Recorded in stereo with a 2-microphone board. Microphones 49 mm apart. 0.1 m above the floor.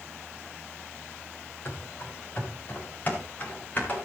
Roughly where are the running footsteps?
Left.